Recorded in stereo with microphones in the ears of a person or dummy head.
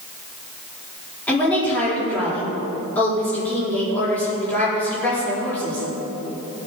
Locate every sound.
1.3 s a woman speaking: 10° left (ahead or behind), 4.5 m